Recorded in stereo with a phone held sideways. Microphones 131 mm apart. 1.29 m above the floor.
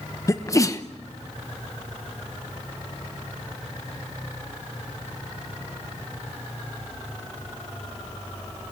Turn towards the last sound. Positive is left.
turn(degrees=25)  # may be behind; listen again after turning